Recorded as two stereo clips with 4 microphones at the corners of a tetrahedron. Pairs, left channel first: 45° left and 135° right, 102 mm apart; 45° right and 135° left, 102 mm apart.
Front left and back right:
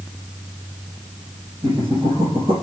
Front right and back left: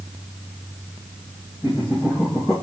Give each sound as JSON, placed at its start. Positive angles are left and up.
{"t": 1.6, "sound": "laughter", "azimuth_deg": -120, "distance_m": 4.0}